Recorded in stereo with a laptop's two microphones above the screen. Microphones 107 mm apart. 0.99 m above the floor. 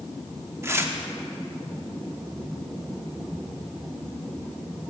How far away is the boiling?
No boiling in this recording.